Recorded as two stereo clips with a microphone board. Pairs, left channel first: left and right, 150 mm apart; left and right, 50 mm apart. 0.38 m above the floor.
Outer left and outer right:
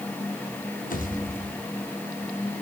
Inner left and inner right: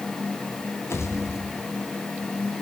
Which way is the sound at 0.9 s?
65° left (ahead or behind).